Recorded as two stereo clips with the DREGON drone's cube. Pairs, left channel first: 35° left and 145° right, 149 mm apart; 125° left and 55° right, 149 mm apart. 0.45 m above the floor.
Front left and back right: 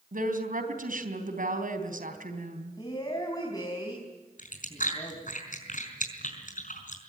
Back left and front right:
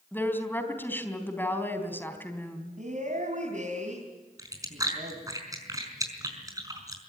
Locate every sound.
0.1 s a woman speaking: 160° right, 3.5 m
2.8 s a woman speaking: 30° right, 4.5 m
4.4 s chewing: 10° left, 5 m